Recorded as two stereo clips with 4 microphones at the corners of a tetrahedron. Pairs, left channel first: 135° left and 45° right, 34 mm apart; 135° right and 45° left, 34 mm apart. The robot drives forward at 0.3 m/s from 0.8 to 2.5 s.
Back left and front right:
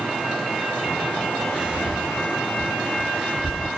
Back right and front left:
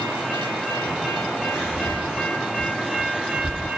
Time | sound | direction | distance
1.5 | whispering | 30° right | 1.8 m